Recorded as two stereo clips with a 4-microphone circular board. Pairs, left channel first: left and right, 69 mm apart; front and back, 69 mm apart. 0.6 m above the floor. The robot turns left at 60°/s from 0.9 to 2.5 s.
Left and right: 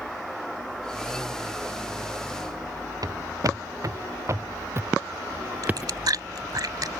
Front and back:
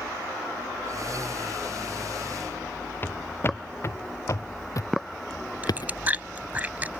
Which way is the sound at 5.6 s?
115° right.